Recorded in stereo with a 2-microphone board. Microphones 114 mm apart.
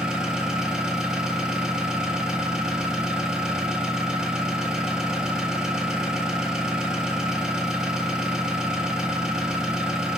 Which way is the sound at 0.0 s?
5° right (ahead or behind).